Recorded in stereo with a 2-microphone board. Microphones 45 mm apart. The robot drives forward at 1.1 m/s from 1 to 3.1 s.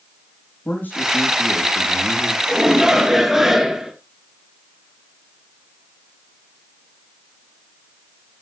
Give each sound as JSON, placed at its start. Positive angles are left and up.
{"t": 0.7, "sound": "a man speaking", "side_deg": 45, "distance_m": 4.5}
{"t": 2.5, "sound": "a shout", "side_deg": -10, "distance_m": 2.0}